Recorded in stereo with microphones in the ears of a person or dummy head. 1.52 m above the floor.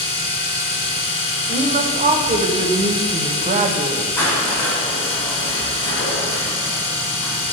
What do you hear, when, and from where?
0.0 s a machine running: 30° left (ahead or behind), 1.1 m
1.5 s a woman speaking: 35° right (ahead or behind), 0.7 m
4.2 s crushing: 30° left (ahead or behind), 1.7 m